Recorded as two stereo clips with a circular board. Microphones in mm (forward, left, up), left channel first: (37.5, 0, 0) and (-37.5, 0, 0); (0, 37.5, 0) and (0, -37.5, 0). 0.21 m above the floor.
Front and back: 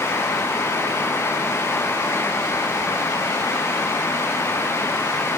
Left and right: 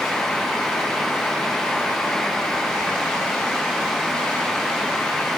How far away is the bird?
I don't hear a bird.